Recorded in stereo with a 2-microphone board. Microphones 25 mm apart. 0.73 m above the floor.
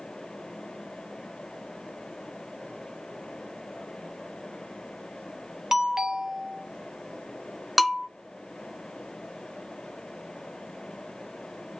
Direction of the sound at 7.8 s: 10° right (ahead or behind).